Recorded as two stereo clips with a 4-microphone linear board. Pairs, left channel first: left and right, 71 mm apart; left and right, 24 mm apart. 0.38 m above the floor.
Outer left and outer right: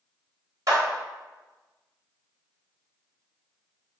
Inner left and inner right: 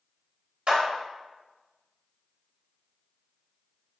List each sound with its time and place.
0.7 s a clap: 50° right (ahead or behind), 1.0 m